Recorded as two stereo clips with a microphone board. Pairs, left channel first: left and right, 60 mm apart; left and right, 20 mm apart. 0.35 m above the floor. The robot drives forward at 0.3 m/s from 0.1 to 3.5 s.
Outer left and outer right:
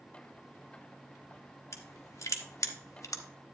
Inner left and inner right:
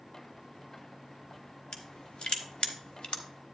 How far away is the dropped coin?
No dropped coin in this recording.